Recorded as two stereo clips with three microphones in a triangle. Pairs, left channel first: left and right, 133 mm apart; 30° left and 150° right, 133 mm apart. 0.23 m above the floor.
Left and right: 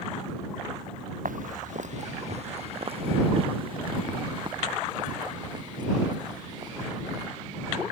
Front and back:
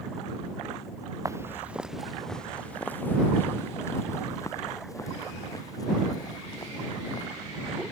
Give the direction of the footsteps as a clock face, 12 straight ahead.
3 o'clock.